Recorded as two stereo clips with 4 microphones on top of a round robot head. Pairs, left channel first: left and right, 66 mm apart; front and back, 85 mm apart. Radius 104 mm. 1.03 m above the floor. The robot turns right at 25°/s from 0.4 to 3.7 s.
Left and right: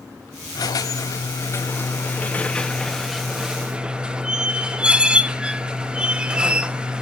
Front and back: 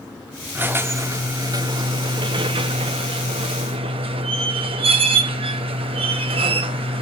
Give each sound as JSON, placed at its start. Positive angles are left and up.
{"t": 0.6, "sound": "a squeak", "azimuth_deg": 115, "distance_m": 0.7}